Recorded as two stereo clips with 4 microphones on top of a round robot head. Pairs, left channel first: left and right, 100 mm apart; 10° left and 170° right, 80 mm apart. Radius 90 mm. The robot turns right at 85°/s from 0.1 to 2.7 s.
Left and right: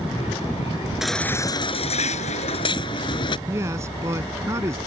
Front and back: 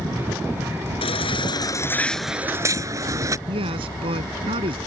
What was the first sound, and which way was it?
A baby crying, 5° right.